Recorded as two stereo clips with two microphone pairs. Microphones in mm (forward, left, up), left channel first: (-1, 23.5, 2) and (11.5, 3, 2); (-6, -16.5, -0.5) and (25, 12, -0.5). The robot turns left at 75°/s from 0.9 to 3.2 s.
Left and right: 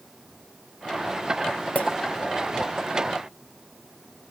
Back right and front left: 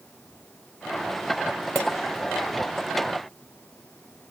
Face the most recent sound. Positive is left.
turn(degrees=15)